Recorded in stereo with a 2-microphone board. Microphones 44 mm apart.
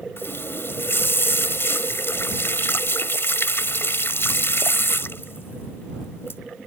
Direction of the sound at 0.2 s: 60° left (ahead or behind).